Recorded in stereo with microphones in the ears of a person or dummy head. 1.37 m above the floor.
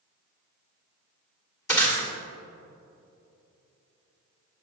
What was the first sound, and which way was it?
Breaking glass, 10° left (ahead or behind).